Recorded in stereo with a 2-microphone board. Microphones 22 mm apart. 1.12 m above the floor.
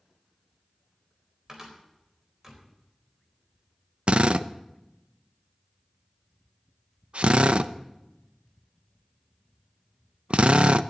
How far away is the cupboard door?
About 4 m.